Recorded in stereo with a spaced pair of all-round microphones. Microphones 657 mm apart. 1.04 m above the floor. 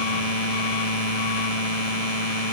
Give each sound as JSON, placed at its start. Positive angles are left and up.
{"t": 0.0, "sound": "a machine running", "side_deg": 65}